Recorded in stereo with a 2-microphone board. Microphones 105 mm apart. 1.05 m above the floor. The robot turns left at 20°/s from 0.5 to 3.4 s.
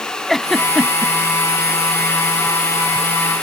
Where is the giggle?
Centre (ahead or behind); by 1.1 s 10° right (ahead or behind).